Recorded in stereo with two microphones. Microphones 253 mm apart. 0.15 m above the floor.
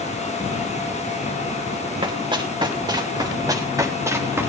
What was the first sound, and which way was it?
Running footsteps, 20° right (ahead or behind).